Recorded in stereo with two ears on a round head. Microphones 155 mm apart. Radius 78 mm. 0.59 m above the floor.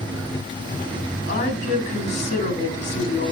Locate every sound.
1.3 s a woman speaking: 45° left (ahead or behind), 4.5 m